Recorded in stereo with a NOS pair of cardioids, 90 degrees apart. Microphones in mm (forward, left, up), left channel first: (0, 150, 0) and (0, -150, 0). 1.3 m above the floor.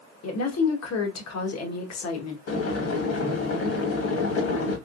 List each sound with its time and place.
0.2 s a woman speaking: 60° left, 1.4 m
2.5 s boiling: 50° left, 1.6 m